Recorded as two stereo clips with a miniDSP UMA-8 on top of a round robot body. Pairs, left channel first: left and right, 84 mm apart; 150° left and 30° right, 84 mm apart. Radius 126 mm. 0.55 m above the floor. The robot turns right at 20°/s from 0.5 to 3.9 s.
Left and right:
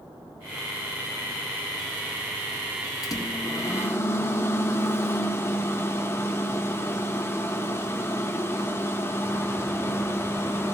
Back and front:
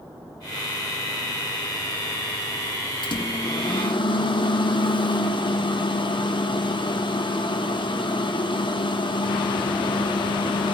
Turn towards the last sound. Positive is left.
turn(degrees=150)